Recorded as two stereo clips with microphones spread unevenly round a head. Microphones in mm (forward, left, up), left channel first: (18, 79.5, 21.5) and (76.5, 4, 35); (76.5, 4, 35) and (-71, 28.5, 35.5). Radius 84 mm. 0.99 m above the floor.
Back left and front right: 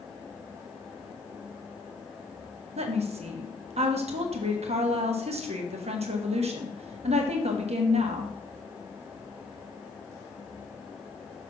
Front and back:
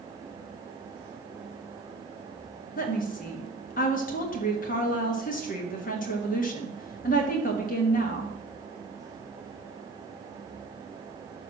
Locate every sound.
2.8 s a woman speaking: 45° right, 1.4 m